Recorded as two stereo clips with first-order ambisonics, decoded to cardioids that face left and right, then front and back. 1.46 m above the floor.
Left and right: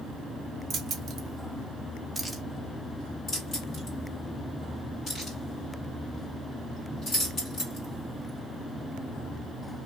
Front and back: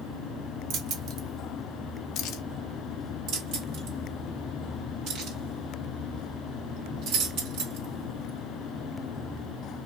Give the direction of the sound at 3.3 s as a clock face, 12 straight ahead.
7 o'clock.